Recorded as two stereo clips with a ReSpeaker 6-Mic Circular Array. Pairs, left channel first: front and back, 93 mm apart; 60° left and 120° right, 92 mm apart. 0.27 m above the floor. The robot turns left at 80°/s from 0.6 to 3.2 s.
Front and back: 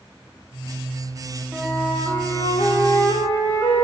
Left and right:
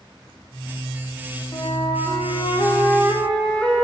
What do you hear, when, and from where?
1.5 s a flute: 100° left, 6.5 m; by 3.8 s 35° right, 6.5 m